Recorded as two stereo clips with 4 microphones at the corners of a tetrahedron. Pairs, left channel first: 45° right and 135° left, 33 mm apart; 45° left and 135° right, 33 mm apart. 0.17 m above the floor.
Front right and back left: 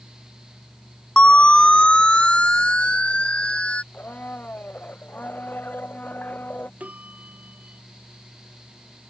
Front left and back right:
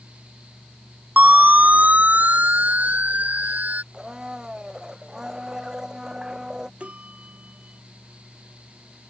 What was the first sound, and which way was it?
A siren, 100° right.